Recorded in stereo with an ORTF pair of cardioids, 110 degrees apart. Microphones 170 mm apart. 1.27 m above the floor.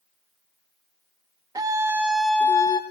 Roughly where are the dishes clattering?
No dishes clattering in this recording.